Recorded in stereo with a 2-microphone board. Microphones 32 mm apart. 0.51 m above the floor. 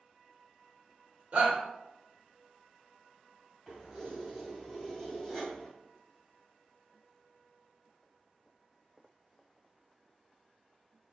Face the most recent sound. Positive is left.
turn(degrees=-5)  # may be behind; listen again after turning